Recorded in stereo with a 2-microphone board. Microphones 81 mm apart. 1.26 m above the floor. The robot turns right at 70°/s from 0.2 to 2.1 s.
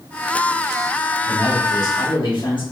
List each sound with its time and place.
1.2 s a man speaking: 35° left, 2.5 m; by 2.6 s 95° left, 2.5 m